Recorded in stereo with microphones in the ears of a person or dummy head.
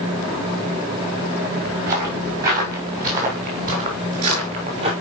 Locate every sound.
1.9 s footsteps: 55° right (ahead or behind), 7.5 m; by 4.9 s 40° right (ahead or behind), 6.5 m